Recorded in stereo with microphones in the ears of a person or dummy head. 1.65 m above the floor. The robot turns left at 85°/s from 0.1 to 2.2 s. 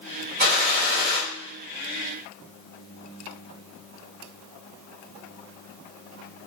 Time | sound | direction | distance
0.4 | a gunshot | 55° right | 1.5 m